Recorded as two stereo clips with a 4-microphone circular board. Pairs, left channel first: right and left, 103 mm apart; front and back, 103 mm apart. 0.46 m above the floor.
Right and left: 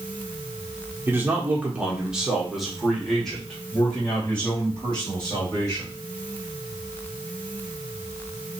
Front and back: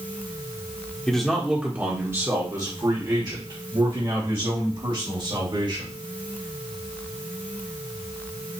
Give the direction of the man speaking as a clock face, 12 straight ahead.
10 o'clock.